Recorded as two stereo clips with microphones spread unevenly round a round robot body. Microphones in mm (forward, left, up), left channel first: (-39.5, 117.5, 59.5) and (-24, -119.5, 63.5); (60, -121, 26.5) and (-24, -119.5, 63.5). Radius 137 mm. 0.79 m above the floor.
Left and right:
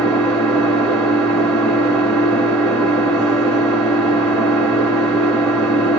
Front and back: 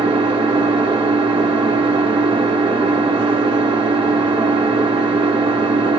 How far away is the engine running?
About 1.6 m.